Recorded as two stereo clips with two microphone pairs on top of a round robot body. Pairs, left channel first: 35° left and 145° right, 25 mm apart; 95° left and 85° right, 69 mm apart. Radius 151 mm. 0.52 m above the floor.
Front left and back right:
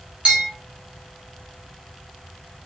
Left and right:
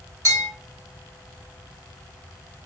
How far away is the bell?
About 2.5 m.